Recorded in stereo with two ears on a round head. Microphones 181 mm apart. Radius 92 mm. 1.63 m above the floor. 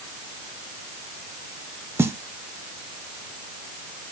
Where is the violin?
No violin in this recording.